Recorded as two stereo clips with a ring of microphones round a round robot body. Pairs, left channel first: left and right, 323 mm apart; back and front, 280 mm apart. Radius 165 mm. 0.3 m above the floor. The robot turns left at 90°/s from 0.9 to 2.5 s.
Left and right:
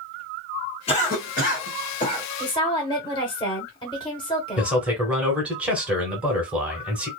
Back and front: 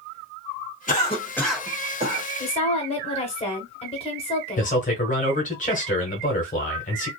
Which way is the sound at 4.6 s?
170° right.